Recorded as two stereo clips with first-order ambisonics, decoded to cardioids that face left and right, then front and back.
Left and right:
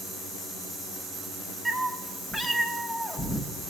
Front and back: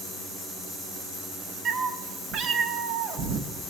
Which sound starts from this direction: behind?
A cat meowing, at 1.6 s.